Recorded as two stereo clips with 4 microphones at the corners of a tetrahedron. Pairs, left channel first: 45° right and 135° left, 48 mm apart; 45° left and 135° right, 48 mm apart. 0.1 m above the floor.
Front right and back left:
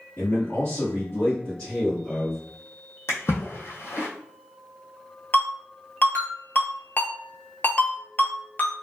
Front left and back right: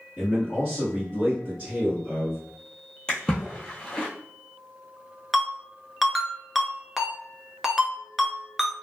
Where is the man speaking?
60° right, 1.8 m; by 2.4 s 120° right, 1.8 m.